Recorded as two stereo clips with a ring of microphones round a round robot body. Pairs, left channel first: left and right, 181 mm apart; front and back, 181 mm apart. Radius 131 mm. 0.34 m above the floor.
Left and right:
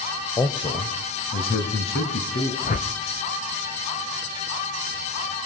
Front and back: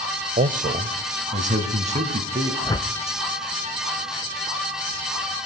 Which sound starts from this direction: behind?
A man speaking, at 0.4 s.